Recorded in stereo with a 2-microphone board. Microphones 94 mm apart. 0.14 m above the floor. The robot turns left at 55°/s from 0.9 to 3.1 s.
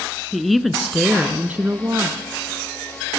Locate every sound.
0.3 s a woman speaking: straight ahead, 1.3 m; by 2.2 s 70° right, 1.3 m